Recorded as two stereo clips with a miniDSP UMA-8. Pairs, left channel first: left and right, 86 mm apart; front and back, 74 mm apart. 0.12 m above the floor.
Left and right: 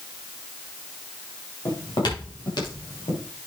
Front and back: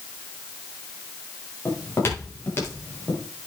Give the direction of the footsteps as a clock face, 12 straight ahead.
10 o'clock.